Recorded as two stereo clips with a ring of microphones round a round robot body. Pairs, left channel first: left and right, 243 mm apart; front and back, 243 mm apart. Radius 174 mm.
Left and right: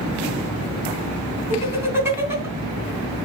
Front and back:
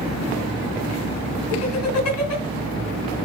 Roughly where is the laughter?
Ahead.